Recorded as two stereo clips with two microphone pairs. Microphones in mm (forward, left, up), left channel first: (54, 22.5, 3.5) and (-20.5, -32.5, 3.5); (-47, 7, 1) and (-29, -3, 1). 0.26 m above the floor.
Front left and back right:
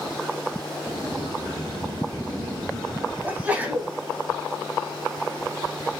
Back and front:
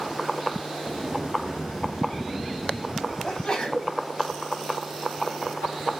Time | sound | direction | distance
0.9 | a sliding door | 155° right | 2.5 m
3.2 | a sneeze | 170° left | 1.0 m